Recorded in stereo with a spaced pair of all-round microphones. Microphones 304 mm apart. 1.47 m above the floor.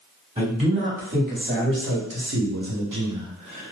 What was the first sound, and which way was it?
A man speaking, 15° right (ahead or behind).